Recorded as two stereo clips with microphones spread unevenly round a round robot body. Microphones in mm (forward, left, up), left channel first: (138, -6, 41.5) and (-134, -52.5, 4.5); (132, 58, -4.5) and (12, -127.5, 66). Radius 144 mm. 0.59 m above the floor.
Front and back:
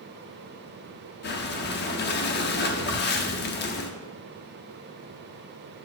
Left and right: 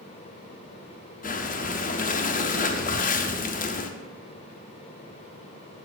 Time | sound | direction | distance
1.2 | breathing | 60° left | 0.8 m